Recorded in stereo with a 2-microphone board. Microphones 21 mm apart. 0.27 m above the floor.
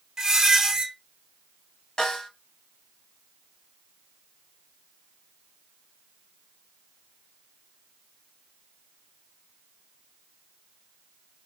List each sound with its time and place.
0.2 s a squeak: 25° right (ahead or behind), 0.8 m
2.0 s a snare drum: 40° left (ahead or behind), 1.1 m